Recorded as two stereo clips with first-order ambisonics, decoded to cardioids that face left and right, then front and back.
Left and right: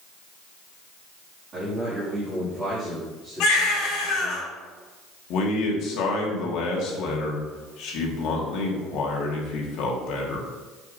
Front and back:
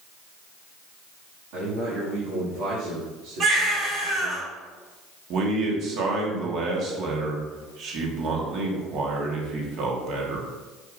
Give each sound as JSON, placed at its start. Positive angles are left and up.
{"t": 1.5, "sound": "a man speaking", "azimuth_deg": -155, "distance_m": 2.0}
{"t": 3.4, "sound": "a baby crying", "azimuth_deg": 125, "distance_m": 3.0}
{"t": 5.3, "sound": "a man speaking", "azimuth_deg": 130, "distance_m": 1.5}